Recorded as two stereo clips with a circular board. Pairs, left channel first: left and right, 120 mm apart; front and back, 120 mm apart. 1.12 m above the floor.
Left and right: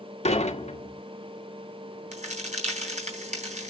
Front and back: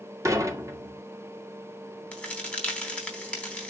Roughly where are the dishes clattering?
Behind left.